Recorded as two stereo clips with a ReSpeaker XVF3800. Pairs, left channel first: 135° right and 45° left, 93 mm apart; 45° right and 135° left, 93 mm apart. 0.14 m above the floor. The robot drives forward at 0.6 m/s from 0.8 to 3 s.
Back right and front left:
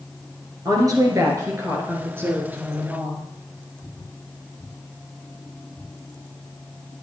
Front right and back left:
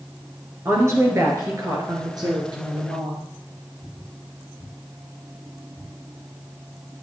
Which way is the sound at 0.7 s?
80° left.